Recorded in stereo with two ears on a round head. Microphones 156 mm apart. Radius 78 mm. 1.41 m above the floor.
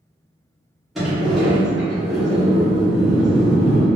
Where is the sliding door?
Centre (ahead or behind), 1.1 m.